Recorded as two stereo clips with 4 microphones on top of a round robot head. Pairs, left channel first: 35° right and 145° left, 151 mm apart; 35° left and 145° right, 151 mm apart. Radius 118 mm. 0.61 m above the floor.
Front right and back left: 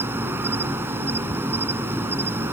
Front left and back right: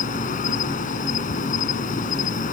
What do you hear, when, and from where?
0.0 s an insect: 70° left